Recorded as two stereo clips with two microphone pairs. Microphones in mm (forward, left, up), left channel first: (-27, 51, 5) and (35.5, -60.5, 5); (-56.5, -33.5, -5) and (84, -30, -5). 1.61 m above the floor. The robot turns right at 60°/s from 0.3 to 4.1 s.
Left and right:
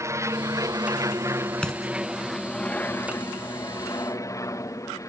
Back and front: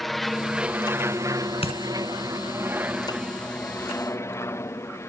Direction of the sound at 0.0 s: 90° right.